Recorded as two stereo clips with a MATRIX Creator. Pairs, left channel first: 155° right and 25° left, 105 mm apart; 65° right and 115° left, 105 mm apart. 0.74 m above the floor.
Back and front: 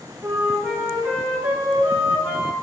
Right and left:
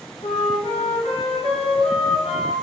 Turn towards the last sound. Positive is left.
turn(degrees=-60)